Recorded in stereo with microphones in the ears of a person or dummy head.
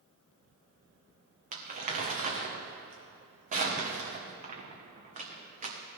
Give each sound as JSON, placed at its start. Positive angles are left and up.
{"t": 1.5, "sound": "crumpling", "side_deg": -35, "distance_m": 1.6}